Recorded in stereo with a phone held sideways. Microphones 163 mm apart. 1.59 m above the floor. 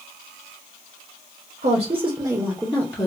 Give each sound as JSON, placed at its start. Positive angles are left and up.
{"t": 1.6, "sound": "a woman speaking", "side_deg": -50, "distance_m": 0.9}